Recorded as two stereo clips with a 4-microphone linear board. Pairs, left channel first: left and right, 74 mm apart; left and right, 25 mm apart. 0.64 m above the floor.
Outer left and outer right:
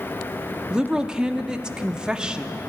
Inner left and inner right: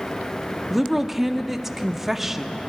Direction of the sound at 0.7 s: 10° right (ahead or behind).